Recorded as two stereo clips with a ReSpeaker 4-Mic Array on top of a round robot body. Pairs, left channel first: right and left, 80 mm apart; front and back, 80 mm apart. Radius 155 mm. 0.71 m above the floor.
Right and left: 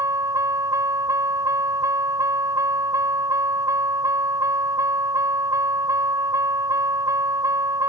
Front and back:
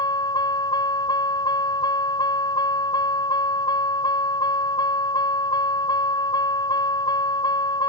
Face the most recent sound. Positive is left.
turn(degrees=40)